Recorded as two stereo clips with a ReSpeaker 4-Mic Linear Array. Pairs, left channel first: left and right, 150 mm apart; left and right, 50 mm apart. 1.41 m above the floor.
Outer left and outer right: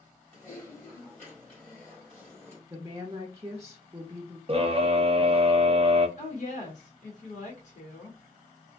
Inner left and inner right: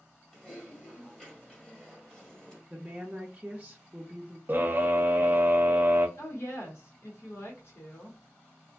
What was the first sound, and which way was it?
Typing on a keyboard, 10° left (ahead or behind).